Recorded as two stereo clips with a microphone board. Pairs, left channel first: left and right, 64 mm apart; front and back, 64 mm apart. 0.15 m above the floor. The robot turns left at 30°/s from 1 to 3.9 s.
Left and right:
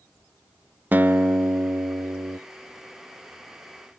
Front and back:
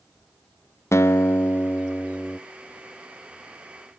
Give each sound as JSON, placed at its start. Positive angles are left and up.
{"t": 0.9, "sound": "a guitar", "azimuth_deg": -35, "distance_m": 0.5}